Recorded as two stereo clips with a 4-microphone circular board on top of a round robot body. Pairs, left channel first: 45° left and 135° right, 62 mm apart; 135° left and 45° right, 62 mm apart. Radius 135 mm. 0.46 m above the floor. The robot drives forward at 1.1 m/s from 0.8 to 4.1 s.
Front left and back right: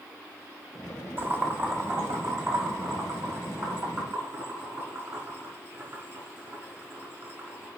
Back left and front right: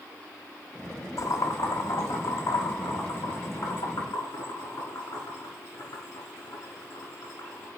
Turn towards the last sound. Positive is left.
turn(degrees=175)